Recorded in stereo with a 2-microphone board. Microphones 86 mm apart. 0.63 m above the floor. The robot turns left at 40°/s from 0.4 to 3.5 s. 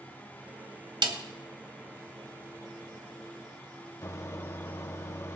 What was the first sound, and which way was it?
A snare drum, 65° right (ahead or behind).